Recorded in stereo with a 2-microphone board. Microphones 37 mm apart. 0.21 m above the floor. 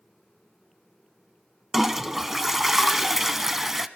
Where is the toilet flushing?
10° right (ahead or behind), 0.7 m.